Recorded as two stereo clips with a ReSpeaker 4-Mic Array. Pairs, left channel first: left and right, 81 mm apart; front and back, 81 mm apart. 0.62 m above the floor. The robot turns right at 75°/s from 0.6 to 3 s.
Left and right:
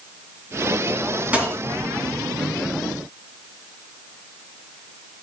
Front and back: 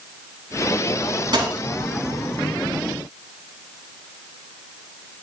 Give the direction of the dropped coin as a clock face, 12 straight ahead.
5 o'clock.